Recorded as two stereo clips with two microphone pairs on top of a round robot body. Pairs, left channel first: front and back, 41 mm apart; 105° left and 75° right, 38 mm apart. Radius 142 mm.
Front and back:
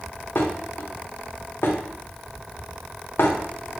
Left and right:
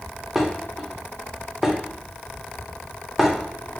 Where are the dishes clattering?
10° left, 0.7 m.